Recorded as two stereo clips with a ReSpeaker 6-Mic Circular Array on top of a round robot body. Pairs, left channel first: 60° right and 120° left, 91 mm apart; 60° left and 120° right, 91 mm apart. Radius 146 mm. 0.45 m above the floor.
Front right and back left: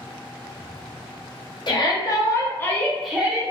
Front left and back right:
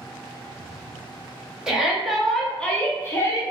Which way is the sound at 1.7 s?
40° right.